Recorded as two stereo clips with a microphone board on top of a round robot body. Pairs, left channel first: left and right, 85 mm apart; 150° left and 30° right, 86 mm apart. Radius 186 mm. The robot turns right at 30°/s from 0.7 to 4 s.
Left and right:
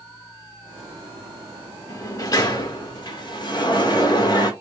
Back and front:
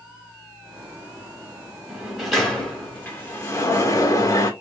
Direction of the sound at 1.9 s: 50° left.